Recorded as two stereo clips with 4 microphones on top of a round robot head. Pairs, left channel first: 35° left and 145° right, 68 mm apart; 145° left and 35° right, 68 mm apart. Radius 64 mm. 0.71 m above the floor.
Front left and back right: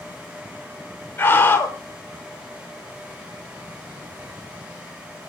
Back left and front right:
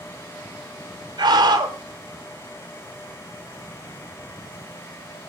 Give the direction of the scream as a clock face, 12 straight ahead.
1 o'clock.